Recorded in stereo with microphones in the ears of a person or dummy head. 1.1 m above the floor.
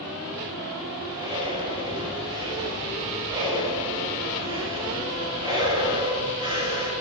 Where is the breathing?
30° right (ahead or behind), 4 m.